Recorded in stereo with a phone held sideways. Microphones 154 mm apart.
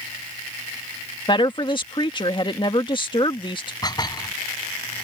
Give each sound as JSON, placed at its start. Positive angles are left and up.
{"t": 1.3, "sound": "a woman speaking", "side_deg": 30}
{"t": 3.8, "sound": "dishes clattering", "side_deg": 25}